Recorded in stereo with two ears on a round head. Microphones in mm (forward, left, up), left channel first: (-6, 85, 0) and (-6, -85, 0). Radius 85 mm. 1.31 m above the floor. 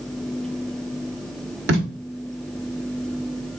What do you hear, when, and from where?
1.7 s tape being pulled: 65° right (ahead or behind), 1.7 m